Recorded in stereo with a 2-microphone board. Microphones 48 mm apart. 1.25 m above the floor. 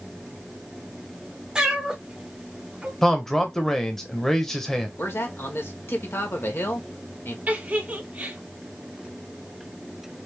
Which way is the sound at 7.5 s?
35° right (ahead or behind).